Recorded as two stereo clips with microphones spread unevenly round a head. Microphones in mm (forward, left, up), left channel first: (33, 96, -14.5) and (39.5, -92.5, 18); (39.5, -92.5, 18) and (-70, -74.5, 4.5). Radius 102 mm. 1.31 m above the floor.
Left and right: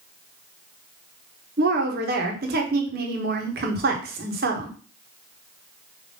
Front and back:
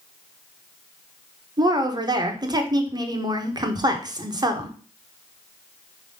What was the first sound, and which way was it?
A woman speaking, 135° right.